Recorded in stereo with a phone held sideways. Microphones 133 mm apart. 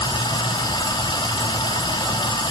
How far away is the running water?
About 1.4 m.